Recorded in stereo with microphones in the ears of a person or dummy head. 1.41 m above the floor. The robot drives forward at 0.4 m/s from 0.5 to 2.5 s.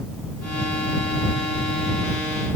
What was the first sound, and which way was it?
Only background noise.